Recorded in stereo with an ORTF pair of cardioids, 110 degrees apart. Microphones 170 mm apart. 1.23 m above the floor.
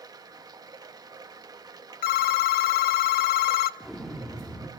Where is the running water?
20° right, 1.4 m.